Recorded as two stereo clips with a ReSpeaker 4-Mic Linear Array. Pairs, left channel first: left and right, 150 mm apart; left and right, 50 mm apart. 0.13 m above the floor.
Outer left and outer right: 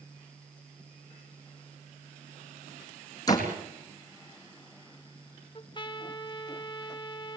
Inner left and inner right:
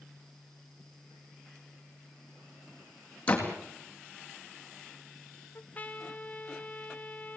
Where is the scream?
I don't hear a scream.